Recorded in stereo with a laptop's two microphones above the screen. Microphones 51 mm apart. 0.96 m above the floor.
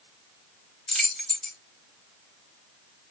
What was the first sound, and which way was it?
Keys jangling, 10° left (ahead or behind).